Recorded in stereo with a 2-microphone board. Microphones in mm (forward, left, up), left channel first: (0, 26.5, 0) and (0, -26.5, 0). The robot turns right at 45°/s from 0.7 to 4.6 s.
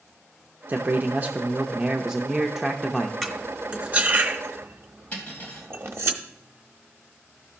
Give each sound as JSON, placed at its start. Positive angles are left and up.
{"t": 0.7, "sound": "a man speaking", "azimuth_deg": -85, "distance_m": 0.6}
{"t": 3.2, "sound": "cutlery clinking", "side_deg": 5, "distance_m": 1.1}
{"t": 5.1, "sound": "cutlery clinking", "side_deg": 25, "distance_m": 3.0}